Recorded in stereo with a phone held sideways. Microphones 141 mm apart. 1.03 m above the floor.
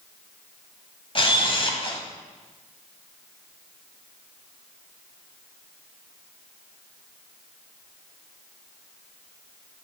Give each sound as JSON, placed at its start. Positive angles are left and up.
{"t": 1.1, "sound": "a camera shutter", "side_deg": 40, "distance_m": 1.1}